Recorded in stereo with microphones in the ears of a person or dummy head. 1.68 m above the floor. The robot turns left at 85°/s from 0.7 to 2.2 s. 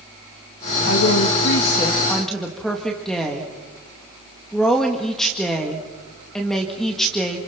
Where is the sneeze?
I don't hear a sneeze.